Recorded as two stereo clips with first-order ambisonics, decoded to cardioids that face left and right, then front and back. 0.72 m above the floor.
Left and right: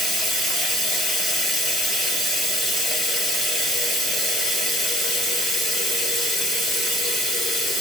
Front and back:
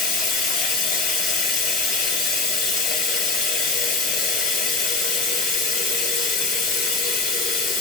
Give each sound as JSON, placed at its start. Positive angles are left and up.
{"t": 0.0, "sound": "running water", "azimuth_deg": 0, "distance_m": 1.9}